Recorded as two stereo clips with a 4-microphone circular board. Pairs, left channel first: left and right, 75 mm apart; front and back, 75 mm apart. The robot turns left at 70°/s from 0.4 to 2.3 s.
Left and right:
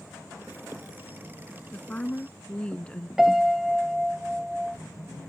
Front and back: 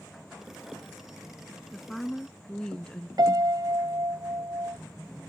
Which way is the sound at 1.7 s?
95° left.